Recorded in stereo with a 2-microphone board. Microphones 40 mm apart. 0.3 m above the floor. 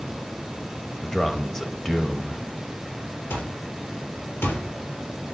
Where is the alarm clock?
85° left, 3 m.